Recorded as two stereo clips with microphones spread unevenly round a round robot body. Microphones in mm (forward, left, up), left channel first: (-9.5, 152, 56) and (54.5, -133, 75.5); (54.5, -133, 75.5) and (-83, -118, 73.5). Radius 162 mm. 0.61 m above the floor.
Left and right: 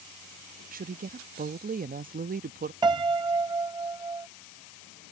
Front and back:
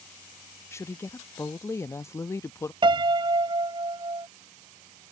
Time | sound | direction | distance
0.7 | a woman speaking | 55° right | ?
2.8 | a piano | 150° right | ?